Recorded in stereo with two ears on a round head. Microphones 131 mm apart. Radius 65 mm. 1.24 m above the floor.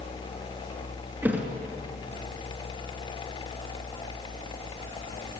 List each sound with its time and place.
1.2 s a thud: 10° right (ahead or behind), 3 m